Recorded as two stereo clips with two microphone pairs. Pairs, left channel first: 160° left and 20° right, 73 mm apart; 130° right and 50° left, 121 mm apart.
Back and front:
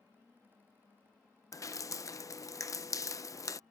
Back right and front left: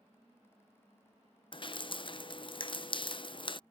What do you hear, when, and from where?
1.5 s dripping: 170° right